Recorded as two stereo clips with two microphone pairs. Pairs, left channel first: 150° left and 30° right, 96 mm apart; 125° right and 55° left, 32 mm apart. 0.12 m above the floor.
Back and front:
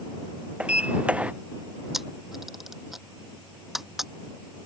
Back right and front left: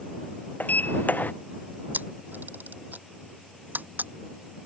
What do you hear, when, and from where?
0.6 s a sliding door: 105° right
1.9 s a camera shutter: 60° left